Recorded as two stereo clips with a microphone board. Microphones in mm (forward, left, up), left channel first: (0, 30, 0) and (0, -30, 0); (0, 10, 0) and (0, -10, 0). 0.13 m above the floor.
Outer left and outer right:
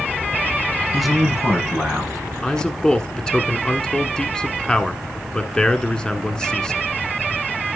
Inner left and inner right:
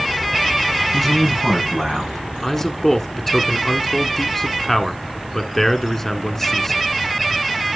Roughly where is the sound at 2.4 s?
Centre.